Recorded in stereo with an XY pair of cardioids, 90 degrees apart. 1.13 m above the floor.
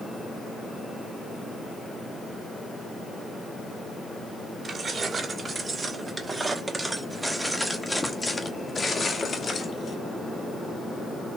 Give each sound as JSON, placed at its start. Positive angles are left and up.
{"t": 4.6, "sound": "keys jangling", "azimuth_deg": -45, "distance_m": 2.5}